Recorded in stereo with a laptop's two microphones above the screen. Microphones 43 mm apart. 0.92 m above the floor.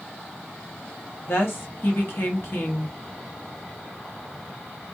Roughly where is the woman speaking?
Left.